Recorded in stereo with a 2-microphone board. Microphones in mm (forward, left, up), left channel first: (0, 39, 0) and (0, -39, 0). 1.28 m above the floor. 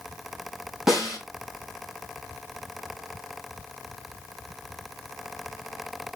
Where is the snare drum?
5° right (ahead or behind), 5.5 m.